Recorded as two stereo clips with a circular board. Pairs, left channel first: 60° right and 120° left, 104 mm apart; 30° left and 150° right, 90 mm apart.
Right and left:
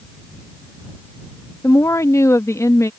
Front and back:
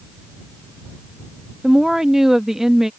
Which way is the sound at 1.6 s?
70° right.